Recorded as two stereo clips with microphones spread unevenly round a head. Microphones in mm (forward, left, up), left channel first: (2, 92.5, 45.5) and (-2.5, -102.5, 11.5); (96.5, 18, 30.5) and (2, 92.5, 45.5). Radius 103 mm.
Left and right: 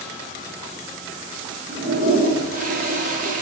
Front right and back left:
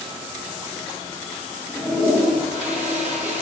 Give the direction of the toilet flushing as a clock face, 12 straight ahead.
5 o'clock.